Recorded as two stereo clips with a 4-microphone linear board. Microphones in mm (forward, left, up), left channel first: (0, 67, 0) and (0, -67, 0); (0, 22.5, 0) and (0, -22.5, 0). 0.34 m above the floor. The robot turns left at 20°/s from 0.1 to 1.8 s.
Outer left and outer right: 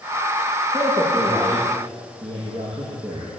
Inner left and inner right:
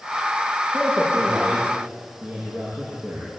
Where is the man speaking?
25° right (ahead or behind), 9 m; by 3.3 s 45° right (ahead or behind), 9 m.